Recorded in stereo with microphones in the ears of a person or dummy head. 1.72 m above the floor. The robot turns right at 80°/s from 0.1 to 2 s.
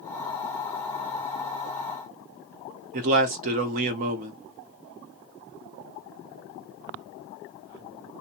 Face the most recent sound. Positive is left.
turn(degrees=-45)  # may be behind; listen again after turning